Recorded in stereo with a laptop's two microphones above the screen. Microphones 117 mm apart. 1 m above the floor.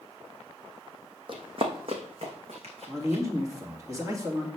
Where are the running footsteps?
45° right (ahead or behind), 2 m; by 3.2 s 65° right (ahead or behind), 3.5 m.